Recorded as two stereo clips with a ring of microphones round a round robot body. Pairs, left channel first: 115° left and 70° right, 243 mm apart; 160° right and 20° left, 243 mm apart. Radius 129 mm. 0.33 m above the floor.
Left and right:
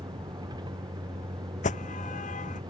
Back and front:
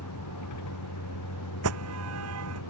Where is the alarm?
50° left.